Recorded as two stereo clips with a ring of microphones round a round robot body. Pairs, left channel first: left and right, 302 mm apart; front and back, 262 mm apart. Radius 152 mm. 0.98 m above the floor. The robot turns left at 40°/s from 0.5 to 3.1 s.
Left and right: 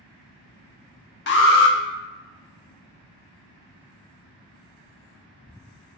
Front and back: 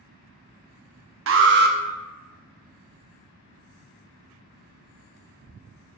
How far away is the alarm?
About 0.9 m.